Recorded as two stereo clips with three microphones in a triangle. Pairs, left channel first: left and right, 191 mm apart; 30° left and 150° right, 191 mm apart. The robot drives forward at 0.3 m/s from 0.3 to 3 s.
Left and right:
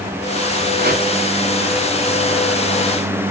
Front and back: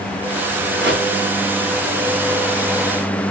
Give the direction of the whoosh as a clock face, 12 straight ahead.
4 o'clock.